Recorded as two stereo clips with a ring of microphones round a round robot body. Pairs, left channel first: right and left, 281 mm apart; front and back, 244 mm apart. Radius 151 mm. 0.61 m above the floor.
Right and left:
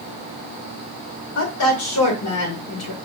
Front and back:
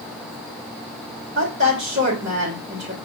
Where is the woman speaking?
120° right, 1.9 m.